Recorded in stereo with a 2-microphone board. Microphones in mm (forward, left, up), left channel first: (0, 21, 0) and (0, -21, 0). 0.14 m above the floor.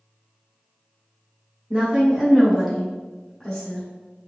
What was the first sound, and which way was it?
A woman speaking, 25° right (ahead or behind).